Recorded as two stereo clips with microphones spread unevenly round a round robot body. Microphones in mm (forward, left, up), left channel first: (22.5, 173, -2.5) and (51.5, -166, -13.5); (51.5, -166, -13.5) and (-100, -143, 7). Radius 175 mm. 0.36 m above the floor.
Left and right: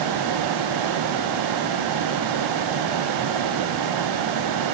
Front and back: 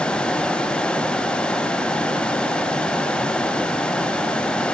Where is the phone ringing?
I don't hear a phone ringing.